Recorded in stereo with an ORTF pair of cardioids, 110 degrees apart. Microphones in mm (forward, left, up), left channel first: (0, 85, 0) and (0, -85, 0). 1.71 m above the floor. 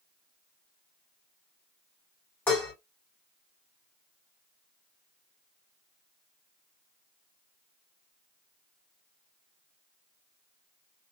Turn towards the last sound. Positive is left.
turn(degrees=10)